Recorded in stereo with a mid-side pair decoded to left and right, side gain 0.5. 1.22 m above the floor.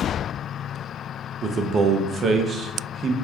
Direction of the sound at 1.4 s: 40° right.